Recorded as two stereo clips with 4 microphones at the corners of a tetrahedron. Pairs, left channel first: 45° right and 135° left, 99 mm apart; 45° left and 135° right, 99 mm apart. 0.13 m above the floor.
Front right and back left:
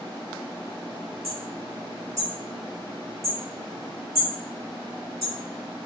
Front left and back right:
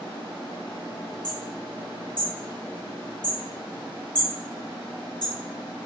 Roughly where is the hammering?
Ahead left.